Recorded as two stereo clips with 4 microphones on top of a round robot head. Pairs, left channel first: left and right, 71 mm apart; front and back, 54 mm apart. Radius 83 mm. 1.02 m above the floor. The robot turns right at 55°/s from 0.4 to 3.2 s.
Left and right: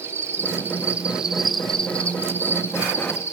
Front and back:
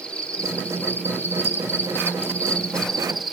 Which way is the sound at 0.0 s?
60° right.